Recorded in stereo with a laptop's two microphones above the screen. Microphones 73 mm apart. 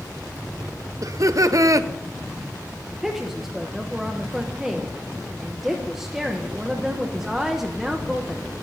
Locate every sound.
1.0 s laughter: 50° right (ahead or behind), 0.7 m
2.9 s a woman speaking: 5° right (ahead or behind), 0.6 m